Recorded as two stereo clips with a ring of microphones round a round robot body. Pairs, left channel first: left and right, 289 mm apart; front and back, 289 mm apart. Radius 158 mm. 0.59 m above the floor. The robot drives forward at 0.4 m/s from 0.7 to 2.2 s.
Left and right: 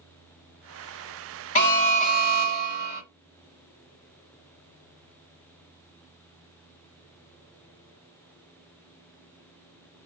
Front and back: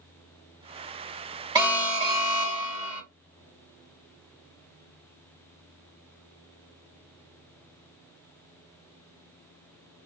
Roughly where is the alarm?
Left.